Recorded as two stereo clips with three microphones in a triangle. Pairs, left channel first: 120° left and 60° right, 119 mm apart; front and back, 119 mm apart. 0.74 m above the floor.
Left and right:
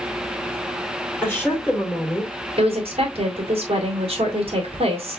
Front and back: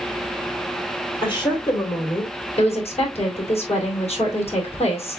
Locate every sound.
1.2 s a woman speaking: 45° left, 3 m
2.6 s a woman speaking: 25° right, 2.5 m